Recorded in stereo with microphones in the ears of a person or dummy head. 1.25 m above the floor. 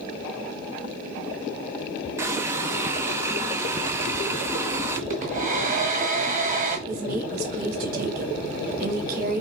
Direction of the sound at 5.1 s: 45° right (ahead or behind).